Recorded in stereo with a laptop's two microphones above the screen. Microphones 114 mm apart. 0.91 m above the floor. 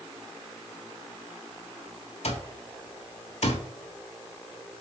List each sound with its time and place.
2.2 s an alarm clock: 70° left (ahead or behind), 1.2 m